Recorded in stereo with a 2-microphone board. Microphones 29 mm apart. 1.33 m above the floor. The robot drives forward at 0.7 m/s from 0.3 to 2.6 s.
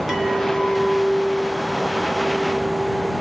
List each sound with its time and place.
0.1 s a clink: 15° right (ahead or behind), 1.3 m; by 3.1 s 5° right (ahead or behind), 3 m